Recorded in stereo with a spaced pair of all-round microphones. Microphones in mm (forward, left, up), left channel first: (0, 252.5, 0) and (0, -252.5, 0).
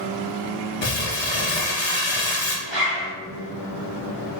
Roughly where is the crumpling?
Left.